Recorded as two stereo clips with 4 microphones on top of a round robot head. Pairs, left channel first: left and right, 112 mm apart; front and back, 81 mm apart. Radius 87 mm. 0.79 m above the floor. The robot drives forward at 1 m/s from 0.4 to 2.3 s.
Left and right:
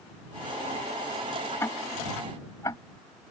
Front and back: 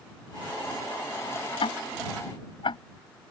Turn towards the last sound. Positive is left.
turn(degrees=20)